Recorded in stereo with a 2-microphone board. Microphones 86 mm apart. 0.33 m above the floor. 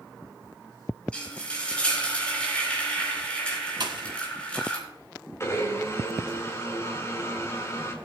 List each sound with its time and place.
1.1 s frying: 15° left (ahead or behind), 4 m
3.8 s a pop: 60° right (ahead or behind), 1.7 m
5.4 s a blender: 35° left (ahead or behind), 2 m